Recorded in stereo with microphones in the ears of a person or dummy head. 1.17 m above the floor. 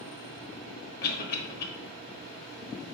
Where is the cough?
50° left (ahead or behind), 1.1 m.